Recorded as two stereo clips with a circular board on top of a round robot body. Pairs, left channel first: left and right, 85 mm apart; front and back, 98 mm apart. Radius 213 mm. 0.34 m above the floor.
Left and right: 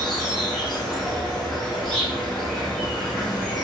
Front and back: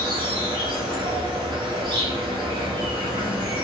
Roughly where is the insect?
Behind.